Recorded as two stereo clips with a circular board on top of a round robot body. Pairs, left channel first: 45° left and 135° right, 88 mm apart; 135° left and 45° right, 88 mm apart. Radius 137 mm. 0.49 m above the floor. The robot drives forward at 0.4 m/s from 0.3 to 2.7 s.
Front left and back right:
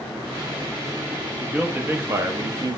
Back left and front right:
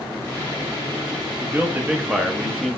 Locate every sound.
1.4 s a man speaking: 75° right, 0.8 m; by 2.8 s 140° right, 0.9 m